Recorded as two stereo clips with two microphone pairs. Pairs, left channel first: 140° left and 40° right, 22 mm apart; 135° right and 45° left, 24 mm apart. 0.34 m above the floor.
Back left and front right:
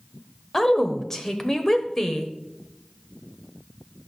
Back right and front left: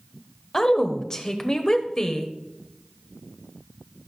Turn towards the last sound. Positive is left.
turn(degrees=-165)